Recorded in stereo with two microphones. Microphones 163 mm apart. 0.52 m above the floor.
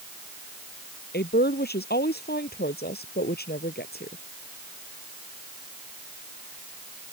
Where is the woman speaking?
80° left; by 4.2 s 75° left (ahead or behind).